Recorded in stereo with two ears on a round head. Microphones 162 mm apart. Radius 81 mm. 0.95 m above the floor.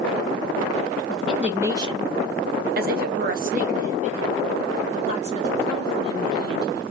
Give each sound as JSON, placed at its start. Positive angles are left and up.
{"t": 1.1, "sound": "a woman speaking", "side_deg": 0, "distance_m": 0.8}